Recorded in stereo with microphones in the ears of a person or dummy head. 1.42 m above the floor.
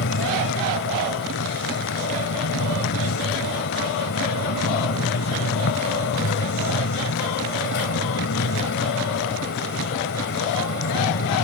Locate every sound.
0.0 s a fan: 65° left (ahead or behind)